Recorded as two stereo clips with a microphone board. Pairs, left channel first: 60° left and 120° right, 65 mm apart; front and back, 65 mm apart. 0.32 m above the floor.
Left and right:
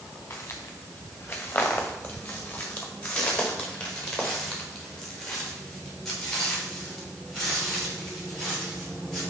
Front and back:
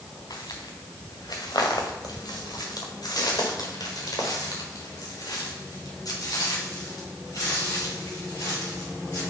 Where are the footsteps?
10° left, 2 m; by 9.2 s 30° right, 7.5 m.